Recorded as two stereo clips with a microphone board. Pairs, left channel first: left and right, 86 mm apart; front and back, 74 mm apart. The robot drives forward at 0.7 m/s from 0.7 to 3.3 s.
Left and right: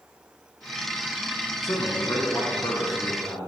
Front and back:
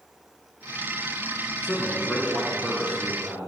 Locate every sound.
1.6 s a man speaking: 60° left, 1.6 m; by 3.5 s 125° left, 1.6 m